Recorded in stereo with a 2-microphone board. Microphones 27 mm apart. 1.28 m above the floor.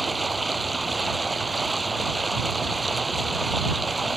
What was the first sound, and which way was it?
Running water, centre (ahead or behind).